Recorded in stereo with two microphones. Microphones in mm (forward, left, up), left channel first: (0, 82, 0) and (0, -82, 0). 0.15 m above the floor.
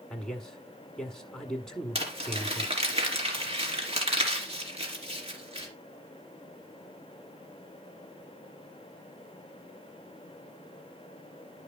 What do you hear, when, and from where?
0.1 s a man speaking: 5° left (ahead or behind), 1.4 m
1.9 s crumpling: 40° right (ahead or behind), 3 m